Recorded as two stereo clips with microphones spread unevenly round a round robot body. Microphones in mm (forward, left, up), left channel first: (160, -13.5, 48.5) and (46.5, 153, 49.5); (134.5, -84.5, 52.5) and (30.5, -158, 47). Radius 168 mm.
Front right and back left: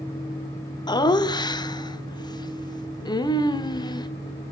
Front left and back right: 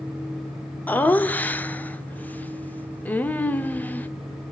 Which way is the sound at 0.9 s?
30° right.